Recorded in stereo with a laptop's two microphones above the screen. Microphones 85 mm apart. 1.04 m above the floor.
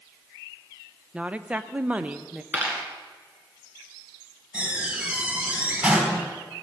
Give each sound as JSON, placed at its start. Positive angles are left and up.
{"t": 1.1, "sound": "a woman speaking", "side_deg": -15, "distance_m": 0.7}
{"t": 2.5, "sound": "a dropped coin", "side_deg": -25, "distance_m": 2.0}
{"t": 4.5, "sound": "a door slam", "side_deg": -15, "distance_m": 3.5}